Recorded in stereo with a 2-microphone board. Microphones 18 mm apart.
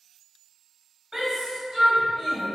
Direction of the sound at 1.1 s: 40° right (ahead or behind).